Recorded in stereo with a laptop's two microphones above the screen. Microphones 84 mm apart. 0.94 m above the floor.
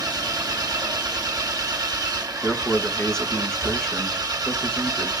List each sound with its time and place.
0.0 s an engine running: 50° right (ahead or behind), 1.7 m
2.4 s a man speaking: 10° left (ahead or behind), 1.1 m